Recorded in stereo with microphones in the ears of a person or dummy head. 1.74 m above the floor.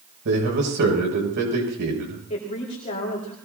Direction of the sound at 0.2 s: 60° right (ahead or behind).